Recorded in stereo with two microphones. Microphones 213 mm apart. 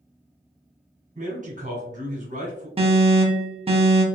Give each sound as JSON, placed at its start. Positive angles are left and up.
{"t": 1.1, "sound": "a man speaking", "side_deg": -35, "distance_m": 1.4}
{"t": 2.8, "sound": "an alarm", "side_deg": -25, "distance_m": 0.7}